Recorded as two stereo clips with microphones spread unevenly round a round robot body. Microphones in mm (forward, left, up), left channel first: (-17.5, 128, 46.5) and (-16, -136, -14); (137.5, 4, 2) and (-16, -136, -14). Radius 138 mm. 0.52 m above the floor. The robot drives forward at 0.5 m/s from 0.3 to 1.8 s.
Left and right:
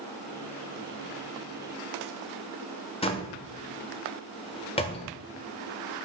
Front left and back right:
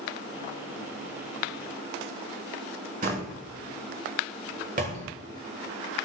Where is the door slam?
165° left, 1.2 m.